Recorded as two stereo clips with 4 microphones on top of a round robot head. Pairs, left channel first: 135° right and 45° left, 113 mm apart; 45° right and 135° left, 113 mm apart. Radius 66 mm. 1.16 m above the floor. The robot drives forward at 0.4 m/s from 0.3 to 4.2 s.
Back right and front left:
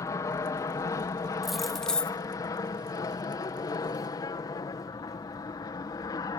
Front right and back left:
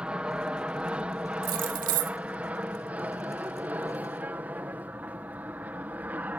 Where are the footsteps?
No footsteps in this recording.